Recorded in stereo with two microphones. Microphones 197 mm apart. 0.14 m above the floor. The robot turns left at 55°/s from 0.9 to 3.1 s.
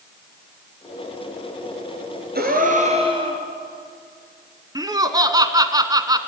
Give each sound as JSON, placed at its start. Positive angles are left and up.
{"t": 2.4, "sound": "a gasp", "azimuth_deg": -105, "distance_m": 2.5}
{"t": 4.8, "sound": "laughter", "side_deg": -20, "distance_m": 1.3}